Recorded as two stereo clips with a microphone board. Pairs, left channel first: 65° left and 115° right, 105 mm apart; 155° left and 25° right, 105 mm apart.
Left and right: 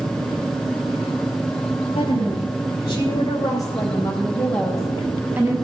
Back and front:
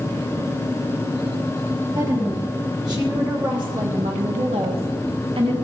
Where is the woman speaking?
35° left, 3 m; by 5.5 s 50° right, 1.3 m.